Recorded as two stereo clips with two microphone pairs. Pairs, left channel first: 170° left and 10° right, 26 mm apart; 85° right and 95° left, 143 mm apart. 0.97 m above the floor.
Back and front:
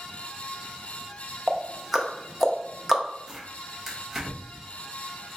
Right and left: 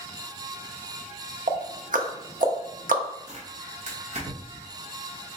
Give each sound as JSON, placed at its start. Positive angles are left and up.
{"t": 1.5, "sound": "ticking", "azimuth_deg": 70, "distance_m": 0.6}
{"t": 3.3, "sound": "tearing paper", "azimuth_deg": 75, "distance_m": 1.1}